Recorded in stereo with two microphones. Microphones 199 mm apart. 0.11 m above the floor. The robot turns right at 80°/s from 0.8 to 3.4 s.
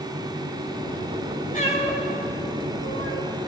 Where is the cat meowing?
40° left (ahead or behind), 6 m; by 3.2 s 80° right, 6 m.